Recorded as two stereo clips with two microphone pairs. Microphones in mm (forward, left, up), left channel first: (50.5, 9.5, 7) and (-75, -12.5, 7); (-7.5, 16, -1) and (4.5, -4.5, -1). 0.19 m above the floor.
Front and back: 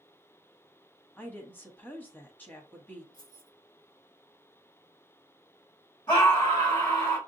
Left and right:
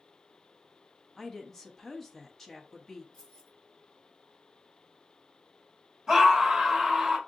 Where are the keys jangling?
65° left, 2.5 m.